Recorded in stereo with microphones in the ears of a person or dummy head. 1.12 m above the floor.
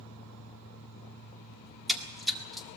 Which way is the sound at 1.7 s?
Centre (ahead or behind).